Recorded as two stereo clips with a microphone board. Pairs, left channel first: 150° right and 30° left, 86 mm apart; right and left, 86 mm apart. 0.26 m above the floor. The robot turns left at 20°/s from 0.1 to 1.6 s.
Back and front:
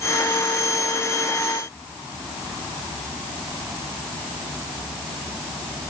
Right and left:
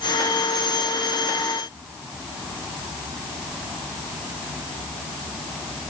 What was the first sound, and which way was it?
Only background noise.